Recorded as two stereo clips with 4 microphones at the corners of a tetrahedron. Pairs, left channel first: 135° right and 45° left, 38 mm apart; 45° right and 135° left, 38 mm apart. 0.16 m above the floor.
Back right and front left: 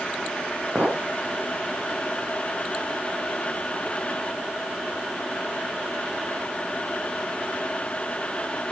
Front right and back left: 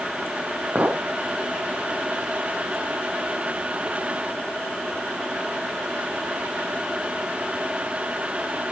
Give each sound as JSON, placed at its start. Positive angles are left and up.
{"t": 0.8, "sound": "a clink", "azimuth_deg": 90, "distance_m": 3.0}